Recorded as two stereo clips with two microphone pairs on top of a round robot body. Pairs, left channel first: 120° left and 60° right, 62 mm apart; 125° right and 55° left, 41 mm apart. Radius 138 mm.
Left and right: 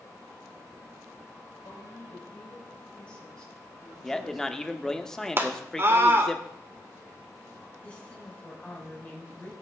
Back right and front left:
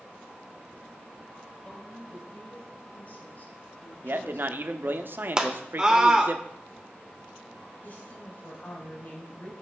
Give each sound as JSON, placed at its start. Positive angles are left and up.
{"t": 1.6, "sound": "a woman speaking", "azimuth_deg": 165, "distance_m": 4.0}
{"t": 4.0, "sound": "a man speaking", "azimuth_deg": 45, "distance_m": 1.4}
{"t": 5.4, "sound": "a scream", "azimuth_deg": -10, "distance_m": 2.5}
{"t": 7.8, "sound": "a woman speaking", "azimuth_deg": -170, "distance_m": 4.0}